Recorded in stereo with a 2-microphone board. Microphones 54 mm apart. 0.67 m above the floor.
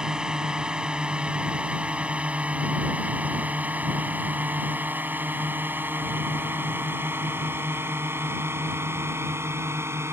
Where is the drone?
15° right (ahead or behind); by 10.1 s 50° right (ahead or behind).